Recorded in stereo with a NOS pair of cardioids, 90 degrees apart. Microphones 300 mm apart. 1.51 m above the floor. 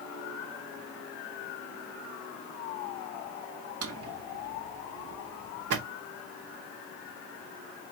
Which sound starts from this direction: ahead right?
A drawer, at 3.8 s.